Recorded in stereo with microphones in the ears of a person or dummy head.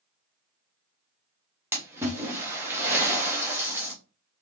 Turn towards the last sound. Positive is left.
turn(degrees=-10)  # may be behind; listen again after turning